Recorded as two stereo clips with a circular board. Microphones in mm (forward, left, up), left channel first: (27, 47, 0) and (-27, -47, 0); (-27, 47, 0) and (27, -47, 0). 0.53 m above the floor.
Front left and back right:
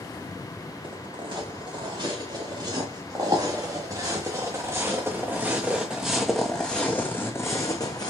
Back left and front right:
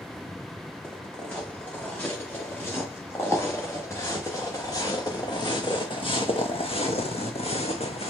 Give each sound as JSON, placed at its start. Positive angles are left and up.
{"t": 0.8, "sound": "footsteps", "azimuth_deg": -165, "distance_m": 3.5}